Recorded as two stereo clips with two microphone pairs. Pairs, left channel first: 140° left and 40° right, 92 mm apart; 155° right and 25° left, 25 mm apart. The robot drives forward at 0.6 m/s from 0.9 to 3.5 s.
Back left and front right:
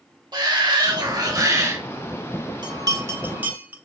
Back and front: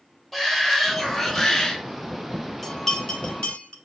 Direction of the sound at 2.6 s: 75° right.